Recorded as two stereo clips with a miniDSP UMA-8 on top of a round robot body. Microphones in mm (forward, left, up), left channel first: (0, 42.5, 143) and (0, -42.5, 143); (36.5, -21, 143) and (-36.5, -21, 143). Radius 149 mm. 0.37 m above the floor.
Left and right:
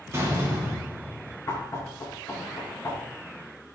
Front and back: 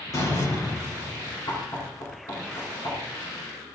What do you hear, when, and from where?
0.1 s a door slam: 35° right, 7.5 m
1.5 s knocking: 35° left, 5 m